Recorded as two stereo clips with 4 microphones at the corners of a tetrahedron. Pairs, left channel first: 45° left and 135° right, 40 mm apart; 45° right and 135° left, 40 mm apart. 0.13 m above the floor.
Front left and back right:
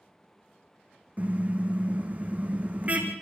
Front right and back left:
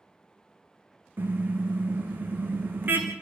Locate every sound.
1.2 s a car horn: 175° left, 3.5 m